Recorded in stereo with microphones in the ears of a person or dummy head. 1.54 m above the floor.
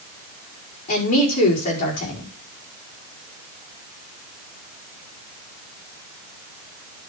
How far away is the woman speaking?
About 5 m.